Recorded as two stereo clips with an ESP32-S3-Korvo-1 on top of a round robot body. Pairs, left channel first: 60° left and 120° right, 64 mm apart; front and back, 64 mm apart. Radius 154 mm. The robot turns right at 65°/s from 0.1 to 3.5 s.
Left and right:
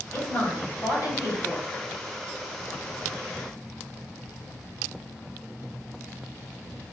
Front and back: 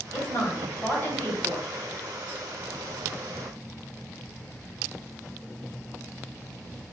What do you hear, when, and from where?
0.1 s a woman speaking: 5° right, 1.9 m; by 1.7 s 95° left, 1.9 m